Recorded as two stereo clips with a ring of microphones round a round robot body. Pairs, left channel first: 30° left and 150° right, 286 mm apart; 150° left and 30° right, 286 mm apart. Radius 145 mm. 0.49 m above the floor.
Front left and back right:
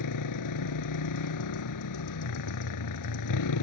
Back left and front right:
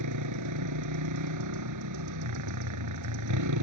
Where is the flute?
I don't hear a flute.